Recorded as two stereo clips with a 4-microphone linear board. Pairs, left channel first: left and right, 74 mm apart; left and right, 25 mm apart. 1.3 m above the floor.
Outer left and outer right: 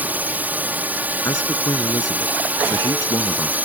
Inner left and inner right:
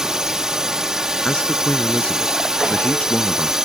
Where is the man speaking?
50° left (ahead or behind).